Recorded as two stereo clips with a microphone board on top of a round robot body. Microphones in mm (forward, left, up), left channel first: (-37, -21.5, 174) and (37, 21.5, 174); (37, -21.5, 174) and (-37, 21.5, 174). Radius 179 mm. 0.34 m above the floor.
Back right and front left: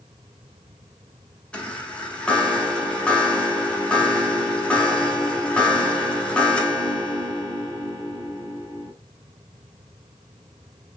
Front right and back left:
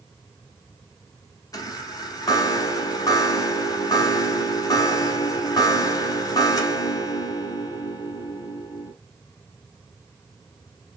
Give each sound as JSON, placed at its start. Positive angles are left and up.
{"t": 1.5, "sound": "a chime", "azimuth_deg": -75, "distance_m": 1.0}